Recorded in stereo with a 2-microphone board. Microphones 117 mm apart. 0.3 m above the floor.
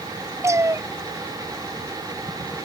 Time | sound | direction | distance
0.4 | a cat meowing | 25° right (ahead or behind) | ?